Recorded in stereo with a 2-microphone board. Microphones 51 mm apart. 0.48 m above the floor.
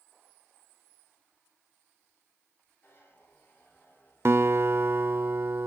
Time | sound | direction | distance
2.8 | a zipper | 40° left (ahead or behind) | 7 m
4.2 | a guitar | 55° right (ahead or behind) | 0.5 m